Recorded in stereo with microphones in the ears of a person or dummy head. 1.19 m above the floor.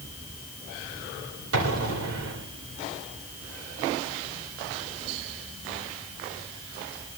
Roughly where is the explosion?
Right.